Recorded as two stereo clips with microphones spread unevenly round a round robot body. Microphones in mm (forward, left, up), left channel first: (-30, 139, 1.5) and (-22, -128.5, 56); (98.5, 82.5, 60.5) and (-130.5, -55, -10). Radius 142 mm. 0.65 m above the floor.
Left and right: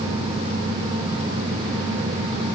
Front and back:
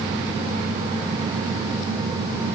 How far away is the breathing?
I don't hear breathing.